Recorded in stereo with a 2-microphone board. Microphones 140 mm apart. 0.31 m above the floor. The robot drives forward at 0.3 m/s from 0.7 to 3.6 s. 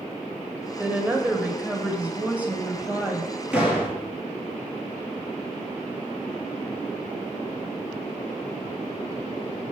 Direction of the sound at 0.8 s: 10° right (ahead or behind).